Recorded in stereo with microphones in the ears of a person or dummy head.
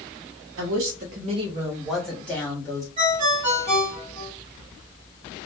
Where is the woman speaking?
70° right (ahead or behind), 0.6 m; by 2.9 s 15° left (ahead or behind), 1.2 m.